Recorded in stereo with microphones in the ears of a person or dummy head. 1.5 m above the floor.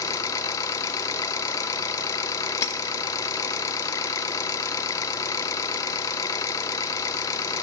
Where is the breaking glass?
20° left (ahead or behind), 1.3 m.